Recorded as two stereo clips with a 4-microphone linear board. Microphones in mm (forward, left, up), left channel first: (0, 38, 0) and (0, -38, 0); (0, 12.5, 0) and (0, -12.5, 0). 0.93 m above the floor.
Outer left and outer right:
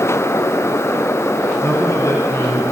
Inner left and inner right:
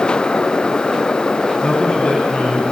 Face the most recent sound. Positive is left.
turn(degrees=45)  # may be behind; listen again after turning